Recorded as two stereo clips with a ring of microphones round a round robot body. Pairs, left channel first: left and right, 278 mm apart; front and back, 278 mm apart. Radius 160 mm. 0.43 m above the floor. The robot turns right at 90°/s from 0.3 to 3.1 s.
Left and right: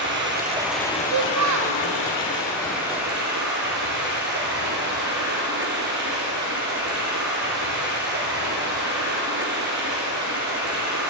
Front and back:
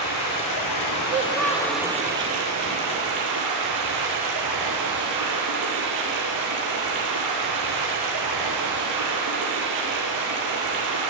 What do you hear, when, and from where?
0.0 s running water: 40° right, 3 m; by 11.1 s 150° right, 3 m
1.1 s a child speaking: 120° right, 0.9 m; by 1.8 s 55° right, 0.9 m